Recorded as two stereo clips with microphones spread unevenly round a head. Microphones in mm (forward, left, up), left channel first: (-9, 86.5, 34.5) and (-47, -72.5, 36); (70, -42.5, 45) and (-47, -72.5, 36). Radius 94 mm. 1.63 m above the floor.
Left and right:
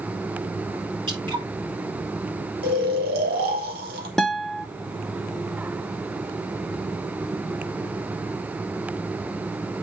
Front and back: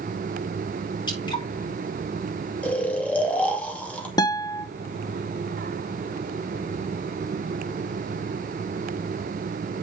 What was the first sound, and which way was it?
Dripping, 35° right.